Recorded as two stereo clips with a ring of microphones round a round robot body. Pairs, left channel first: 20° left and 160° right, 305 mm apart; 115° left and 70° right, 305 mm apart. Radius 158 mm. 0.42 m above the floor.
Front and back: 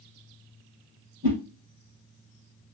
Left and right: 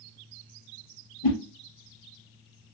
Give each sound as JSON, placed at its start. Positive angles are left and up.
{"t": 1.2, "sound": "a whoosh", "azimuth_deg": 130, "distance_m": 2.5}